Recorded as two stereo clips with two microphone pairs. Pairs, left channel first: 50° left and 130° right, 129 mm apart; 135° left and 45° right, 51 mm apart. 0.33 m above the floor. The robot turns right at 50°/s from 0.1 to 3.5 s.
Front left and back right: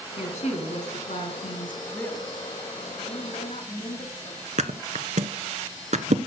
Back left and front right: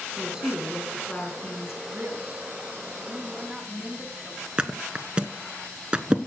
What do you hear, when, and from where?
0.2 s a woman speaking: 25° left, 3.5 m; by 1.8 s 105° left, 3.5 m
1.9 s a woman speaking: 25° right, 2.5 m; by 4.4 s 60° left, 2.5 m
4.6 s a thud: 110° right, 0.8 m